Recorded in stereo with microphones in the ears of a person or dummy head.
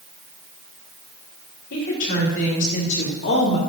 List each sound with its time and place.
1.7 s a woman speaking: 65° left (ahead or behind), 5 m; by 3.6 s 55° left (ahead or behind), 3 m